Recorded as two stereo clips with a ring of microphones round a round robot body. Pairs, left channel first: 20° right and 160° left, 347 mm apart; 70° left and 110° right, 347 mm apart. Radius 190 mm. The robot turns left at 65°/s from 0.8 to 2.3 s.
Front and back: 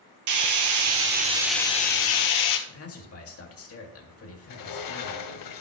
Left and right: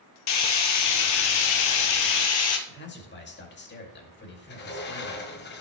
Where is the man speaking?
15° left, 2 m.